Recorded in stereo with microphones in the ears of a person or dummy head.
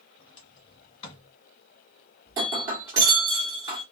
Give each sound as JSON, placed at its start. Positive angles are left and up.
{"t": 0.2, "sound": "a sliding door", "side_deg": 30, "distance_m": 1.5}
{"t": 2.3, "sound": "breaking glass", "side_deg": -15, "distance_m": 1.3}